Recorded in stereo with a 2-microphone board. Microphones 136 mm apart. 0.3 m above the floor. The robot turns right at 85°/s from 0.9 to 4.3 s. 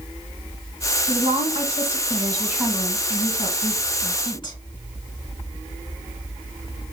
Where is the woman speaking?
140° right, 1.4 m; by 4.6 s 135° left, 1.4 m.